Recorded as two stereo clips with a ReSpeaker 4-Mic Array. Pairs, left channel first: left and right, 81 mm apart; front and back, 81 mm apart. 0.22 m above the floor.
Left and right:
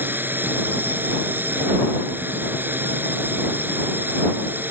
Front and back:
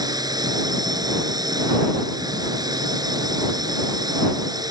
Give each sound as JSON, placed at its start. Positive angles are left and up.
{"t": 0.0, "sound": "a drone", "azimuth_deg": -155}